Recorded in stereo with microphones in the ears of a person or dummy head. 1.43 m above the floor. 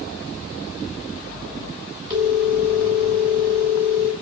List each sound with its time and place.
2.1 s a phone ringing: 20° right (ahead or behind), 2 m